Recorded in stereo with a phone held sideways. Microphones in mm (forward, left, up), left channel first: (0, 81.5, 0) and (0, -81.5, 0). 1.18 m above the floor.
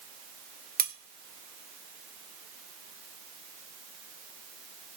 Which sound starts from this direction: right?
Cutlery clinking, at 0.8 s.